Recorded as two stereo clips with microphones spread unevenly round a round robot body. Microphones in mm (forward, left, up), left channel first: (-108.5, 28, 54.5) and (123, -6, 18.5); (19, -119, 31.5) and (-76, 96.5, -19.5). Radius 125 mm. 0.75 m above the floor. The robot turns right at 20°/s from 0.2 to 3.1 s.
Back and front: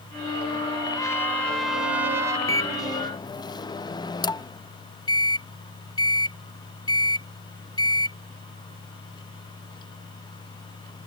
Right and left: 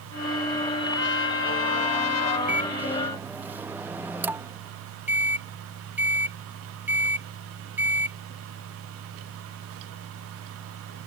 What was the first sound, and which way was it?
A trumpet, 110° right.